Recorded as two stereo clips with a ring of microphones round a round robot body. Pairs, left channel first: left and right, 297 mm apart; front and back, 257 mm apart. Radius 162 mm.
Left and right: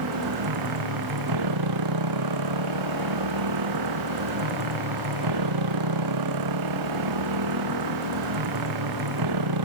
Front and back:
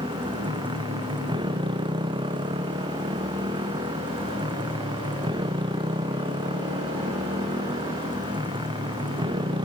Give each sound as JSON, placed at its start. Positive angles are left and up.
{"t": 0.0, "sound": "a motorcycle", "azimuth_deg": -105}